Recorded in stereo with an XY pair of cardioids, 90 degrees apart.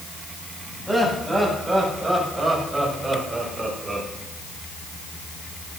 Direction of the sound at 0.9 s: 5° right.